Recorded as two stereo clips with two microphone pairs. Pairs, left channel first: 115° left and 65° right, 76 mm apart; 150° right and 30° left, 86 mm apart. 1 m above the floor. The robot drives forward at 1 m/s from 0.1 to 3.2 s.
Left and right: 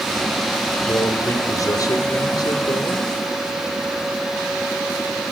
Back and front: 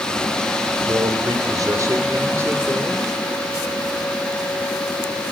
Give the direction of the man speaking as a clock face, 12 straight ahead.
10 o'clock.